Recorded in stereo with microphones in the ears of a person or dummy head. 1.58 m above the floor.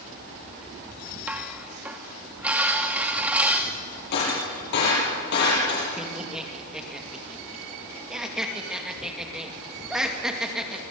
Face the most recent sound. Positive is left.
turn(degrees=-5)  # may be behind; listen again after turning